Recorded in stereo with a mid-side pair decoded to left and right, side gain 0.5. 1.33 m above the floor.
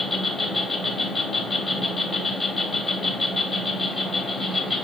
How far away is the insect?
About 1.1 m.